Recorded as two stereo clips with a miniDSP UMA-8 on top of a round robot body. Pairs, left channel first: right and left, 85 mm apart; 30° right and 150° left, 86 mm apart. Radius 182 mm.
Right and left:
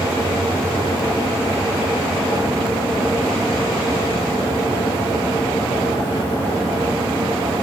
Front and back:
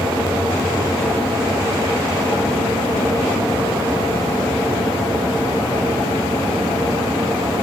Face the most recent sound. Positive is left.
No sound to turn to.